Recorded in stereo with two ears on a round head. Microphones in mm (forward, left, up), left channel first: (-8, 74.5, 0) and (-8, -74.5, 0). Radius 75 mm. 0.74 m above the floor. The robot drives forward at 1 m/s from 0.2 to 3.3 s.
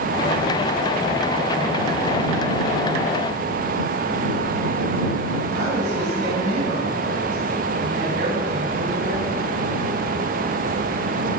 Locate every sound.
5.5 s a woman speaking: 85° right, 6 m